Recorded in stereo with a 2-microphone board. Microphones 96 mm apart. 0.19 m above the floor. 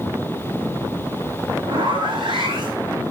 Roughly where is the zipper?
Right.